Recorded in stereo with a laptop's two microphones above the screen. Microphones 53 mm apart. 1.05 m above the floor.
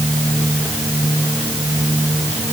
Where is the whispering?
I don't hear whispering.